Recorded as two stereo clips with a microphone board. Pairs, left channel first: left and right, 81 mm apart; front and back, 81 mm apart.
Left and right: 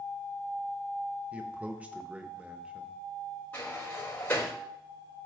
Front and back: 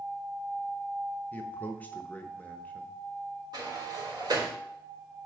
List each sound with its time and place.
1.3 s a man speaking: 35° right, 1.0 m
3.5 s a sliding door: 155° left, 3 m